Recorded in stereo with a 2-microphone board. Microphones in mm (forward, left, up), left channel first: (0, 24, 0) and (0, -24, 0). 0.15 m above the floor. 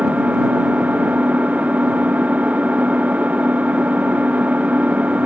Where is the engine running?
30° right (ahead or behind).